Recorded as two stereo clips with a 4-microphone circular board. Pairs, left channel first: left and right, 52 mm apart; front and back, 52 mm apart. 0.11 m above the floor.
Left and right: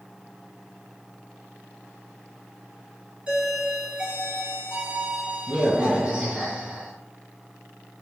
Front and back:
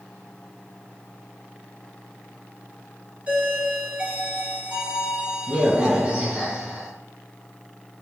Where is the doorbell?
145° right, 1.9 m.